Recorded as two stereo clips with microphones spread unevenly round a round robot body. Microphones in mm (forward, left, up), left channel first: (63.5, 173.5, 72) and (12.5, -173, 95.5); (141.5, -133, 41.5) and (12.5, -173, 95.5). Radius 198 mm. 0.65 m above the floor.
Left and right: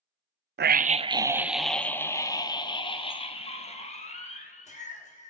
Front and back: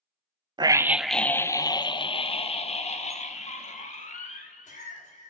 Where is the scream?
85° right, 0.6 m; by 5.3 s 15° left, 2.5 m.